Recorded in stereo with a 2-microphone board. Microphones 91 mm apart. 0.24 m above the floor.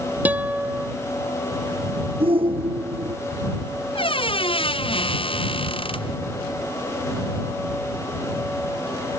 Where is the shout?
80° right.